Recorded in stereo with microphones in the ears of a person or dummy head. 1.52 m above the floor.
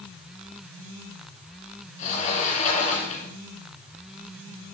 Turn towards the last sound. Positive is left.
turn(degrees=40)  # may be behind; listen again after turning